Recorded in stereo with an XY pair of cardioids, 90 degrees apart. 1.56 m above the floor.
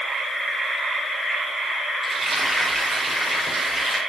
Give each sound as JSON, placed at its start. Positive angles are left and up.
{"t": 2.0, "sound": "frying", "azimuth_deg": -30, "distance_m": 5.0}